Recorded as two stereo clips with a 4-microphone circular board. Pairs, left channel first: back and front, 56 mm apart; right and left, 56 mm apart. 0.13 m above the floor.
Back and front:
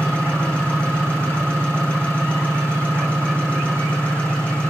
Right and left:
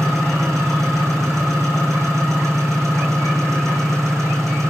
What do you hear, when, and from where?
0.0 s an engine running: 110° left, 7 m